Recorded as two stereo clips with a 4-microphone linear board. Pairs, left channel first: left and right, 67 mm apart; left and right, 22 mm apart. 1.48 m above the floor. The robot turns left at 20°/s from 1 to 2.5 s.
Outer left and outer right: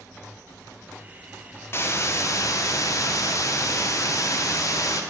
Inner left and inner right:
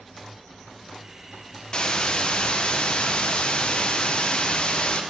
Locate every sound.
1.7 s a hiss: 40° left (ahead or behind), 0.9 m; by 5.0 s 55° left (ahead or behind), 0.9 m